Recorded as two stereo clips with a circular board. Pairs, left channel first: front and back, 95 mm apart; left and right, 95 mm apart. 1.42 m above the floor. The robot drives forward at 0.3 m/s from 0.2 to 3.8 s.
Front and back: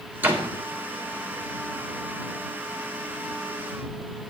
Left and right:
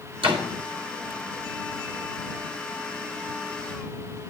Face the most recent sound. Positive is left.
turn(degrees=-135)